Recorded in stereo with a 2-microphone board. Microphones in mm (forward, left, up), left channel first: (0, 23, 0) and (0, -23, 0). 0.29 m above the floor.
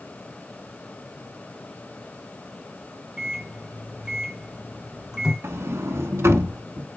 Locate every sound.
3.2 s a microwave: 15° right (ahead or behind), 2 m
5.4 s a sliding door: 75° right (ahead or behind), 0.9 m